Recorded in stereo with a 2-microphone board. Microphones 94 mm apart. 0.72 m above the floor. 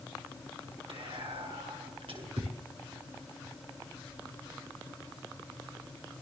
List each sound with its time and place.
0.9 s whispering: 80° right, 8.5 m